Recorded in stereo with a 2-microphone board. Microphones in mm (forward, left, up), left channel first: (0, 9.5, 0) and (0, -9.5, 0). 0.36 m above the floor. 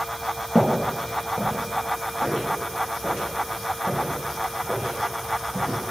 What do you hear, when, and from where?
0.6 s footsteps: 5° right (ahead or behind), 4.5 m; by 5.8 s 80° right, 7 m